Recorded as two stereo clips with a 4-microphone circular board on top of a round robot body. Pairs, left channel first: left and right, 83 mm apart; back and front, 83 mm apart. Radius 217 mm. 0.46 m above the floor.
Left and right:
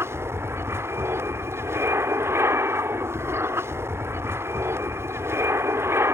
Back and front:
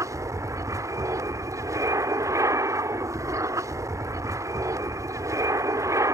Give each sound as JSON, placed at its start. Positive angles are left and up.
{"t": 0.0, "sound": "an aircraft", "azimuth_deg": -35}